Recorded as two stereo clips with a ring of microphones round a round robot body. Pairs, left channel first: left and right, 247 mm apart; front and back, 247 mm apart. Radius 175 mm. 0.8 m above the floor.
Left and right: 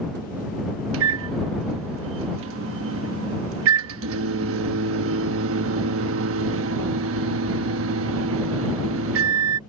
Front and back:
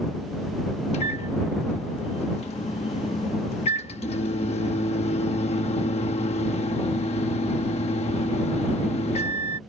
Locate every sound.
0.9 s a microwave: 65° right